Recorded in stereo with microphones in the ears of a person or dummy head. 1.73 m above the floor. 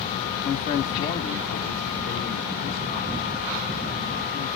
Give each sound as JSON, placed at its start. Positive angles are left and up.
{"t": 0.4, "sound": "a man speaking", "side_deg": 30, "distance_m": 0.7}